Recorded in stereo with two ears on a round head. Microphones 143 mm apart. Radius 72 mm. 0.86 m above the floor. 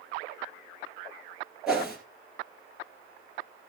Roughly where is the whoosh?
Centre.